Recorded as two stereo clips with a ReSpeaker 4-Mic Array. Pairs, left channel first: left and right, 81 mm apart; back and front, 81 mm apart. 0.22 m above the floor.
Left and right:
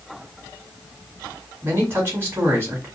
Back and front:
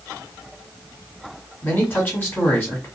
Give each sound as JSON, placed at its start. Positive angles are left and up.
{"t": 1.6, "sound": "a man speaking", "azimuth_deg": -130, "distance_m": 1.6}